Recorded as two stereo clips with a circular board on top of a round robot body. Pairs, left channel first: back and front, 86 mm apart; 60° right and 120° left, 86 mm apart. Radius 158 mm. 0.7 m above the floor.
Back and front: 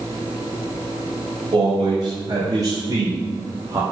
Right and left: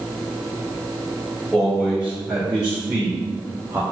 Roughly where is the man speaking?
Ahead left.